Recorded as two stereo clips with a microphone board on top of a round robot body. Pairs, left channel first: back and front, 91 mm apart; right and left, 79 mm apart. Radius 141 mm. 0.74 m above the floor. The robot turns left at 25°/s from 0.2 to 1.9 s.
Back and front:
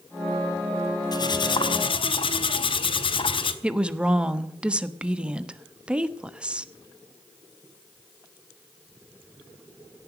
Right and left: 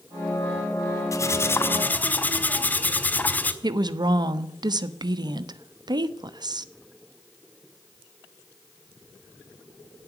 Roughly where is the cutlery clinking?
Behind right.